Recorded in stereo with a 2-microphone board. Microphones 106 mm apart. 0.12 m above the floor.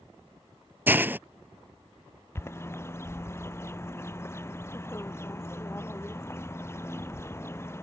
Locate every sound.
0.9 s a hiss: 20° right (ahead or behind)
2.4 s a bird: 25° left (ahead or behind)